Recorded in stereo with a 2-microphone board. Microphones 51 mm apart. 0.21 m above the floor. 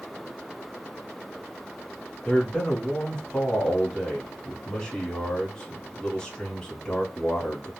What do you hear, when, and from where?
2.2 s a man speaking: 15° left (ahead or behind), 1.3 m